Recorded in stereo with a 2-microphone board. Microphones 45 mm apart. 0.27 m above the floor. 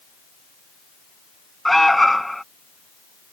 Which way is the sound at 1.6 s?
5° left (ahead or behind).